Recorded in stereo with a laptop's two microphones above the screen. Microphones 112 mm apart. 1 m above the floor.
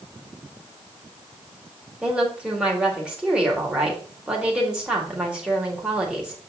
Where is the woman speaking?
10° right (ahead or behind), 1.8 m.